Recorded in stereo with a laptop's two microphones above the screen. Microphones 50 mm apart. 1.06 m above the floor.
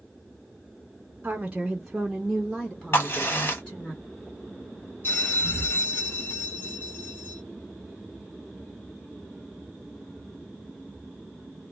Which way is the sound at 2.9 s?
50° left (ahead or behind).